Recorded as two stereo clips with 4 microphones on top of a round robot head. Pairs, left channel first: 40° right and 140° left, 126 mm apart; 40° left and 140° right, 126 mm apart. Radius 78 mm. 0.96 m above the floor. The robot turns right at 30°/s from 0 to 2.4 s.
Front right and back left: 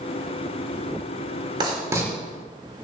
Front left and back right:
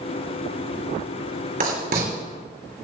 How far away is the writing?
About 5.5 m.